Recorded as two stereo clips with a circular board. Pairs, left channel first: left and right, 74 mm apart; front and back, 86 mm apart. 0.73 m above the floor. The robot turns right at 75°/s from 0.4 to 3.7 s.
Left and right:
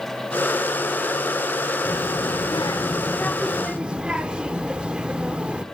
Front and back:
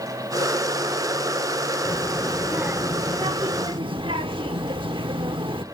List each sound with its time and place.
1.9 s a child speaking: 55° left, 0.8 m; by 5.6 s 165° right, 0.8 m